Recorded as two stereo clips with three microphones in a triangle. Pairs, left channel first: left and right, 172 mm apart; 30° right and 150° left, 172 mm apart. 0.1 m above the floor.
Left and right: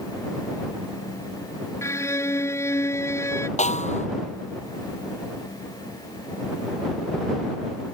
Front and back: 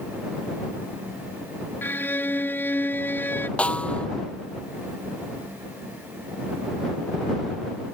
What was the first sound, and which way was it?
A violin, 35° left.